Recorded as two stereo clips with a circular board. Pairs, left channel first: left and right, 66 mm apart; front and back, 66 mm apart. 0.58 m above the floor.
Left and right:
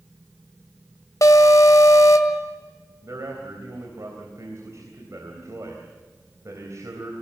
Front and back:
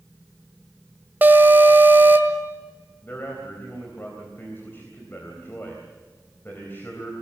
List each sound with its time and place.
1.2 s an alarm: 120° left, 1.7 m
3.0 s a man speaking: 55° right, 3.5 m